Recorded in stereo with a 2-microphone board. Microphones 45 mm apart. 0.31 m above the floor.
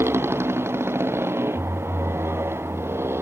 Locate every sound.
0.0 s a motorcycle: 70° right (ahead or behind)